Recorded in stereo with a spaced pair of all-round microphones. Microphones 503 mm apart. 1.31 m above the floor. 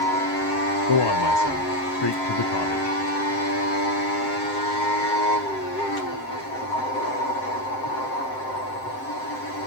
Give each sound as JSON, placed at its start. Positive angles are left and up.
{"t": 0.9, "sound": "a man speaking", "side_deg": 55, "distance_m": 0.7}